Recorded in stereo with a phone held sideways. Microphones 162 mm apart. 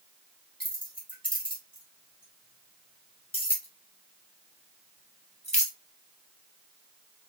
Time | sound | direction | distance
0.6 | keys jangling | 30° left (ahead or behind) | 4 m